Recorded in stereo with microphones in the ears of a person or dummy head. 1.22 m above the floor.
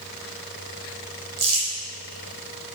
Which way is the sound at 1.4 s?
30° right (ahead or behind).